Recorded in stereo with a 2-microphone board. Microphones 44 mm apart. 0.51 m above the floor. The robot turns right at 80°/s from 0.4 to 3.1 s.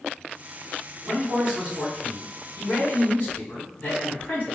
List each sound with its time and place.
1.0 s a man speaking: 70° right, 1.8 m; by 4.6 s 95° left, 1.8 m